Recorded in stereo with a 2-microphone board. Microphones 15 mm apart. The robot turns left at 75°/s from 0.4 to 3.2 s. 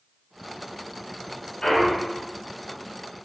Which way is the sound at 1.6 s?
75° left.